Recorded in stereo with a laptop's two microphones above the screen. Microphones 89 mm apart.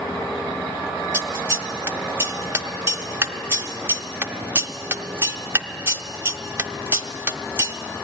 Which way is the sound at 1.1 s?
25° right (ahead or behind).